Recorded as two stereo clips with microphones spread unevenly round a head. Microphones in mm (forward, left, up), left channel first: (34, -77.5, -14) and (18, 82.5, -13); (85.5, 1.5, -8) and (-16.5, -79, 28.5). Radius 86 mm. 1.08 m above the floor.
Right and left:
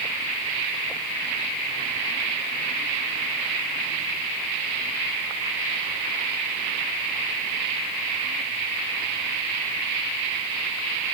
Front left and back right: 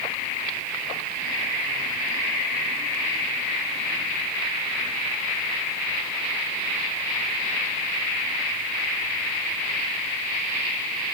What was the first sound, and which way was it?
Only background noise.